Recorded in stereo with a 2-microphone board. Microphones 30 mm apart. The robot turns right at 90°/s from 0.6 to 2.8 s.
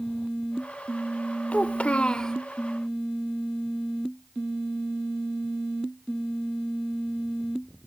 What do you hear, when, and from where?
1.5 s a child speaking: 80° left, 0.6 m; by 2.4 s 155° left, 0.6 m